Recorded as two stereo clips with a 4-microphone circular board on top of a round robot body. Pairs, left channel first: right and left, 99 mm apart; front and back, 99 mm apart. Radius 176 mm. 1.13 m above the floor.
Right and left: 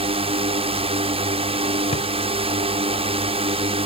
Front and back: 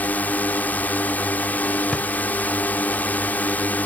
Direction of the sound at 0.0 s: 75° left.